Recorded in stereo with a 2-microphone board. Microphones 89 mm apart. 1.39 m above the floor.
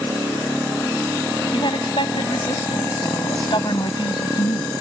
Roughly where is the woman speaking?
Left.